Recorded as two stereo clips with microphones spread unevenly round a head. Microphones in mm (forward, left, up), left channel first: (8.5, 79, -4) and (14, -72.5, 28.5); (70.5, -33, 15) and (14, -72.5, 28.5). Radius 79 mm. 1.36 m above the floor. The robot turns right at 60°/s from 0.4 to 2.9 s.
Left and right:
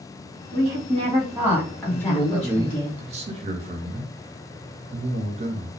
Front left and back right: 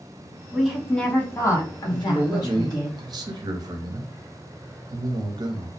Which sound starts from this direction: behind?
A man speaking, at 1.9 s.